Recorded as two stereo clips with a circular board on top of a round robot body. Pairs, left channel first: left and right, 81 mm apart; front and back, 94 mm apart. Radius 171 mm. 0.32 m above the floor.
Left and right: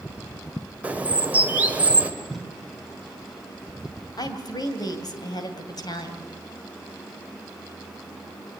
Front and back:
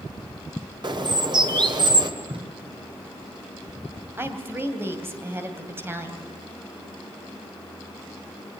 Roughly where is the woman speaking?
Behind left.